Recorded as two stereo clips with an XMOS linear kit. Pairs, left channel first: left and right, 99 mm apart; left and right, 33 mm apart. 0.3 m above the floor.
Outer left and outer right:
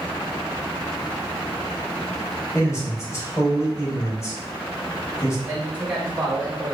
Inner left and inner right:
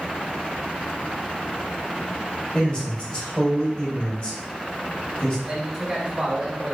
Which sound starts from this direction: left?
A man speaking, at 2.5 s.